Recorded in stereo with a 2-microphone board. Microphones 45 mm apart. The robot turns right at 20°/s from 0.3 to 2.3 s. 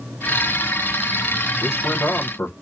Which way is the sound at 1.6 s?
55° left (ahead or behind).